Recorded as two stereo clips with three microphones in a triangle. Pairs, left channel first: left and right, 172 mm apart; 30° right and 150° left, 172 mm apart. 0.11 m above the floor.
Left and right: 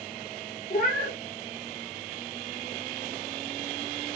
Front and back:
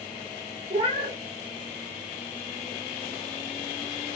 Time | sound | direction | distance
0.7 | a cat meowing | 100° left | 0.6 m